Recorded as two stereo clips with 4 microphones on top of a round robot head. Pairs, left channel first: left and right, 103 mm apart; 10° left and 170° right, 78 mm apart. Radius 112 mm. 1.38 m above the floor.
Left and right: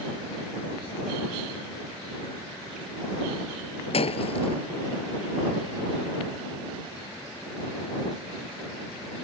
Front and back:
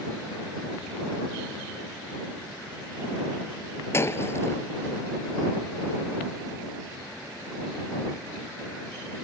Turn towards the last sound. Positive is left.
turn(degrees=65)